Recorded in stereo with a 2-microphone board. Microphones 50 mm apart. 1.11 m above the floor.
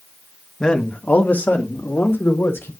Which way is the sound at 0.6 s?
15° left (ahead or behind).